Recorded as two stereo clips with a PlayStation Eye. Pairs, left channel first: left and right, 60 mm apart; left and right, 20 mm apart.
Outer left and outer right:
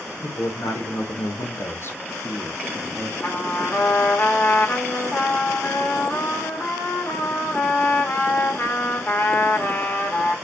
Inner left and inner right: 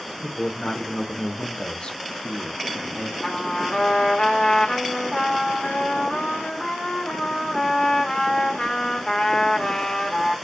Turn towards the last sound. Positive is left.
turn(degrees=35)  # may be behind; listen again after turning